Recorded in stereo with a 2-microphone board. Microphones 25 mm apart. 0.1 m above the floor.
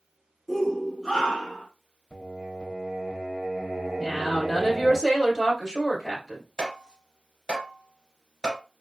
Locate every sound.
0.5 s a shout: 5° right (ahead or behind), 1.1 m; by 1.7 s 15° left (ahead or behind), 1.3 m
2.1 s singing: 30° right (ahead or behind), 1.2 m
4.0 s a woman speaking: 10° right (ahead or behind), 1.8 m
6.6 s tapping: 25° left (ahead or behind), 1.6 m